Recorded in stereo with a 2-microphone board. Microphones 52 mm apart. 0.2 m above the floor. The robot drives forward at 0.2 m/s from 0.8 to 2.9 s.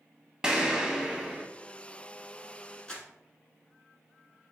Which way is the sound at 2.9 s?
20° left (ahead or behind).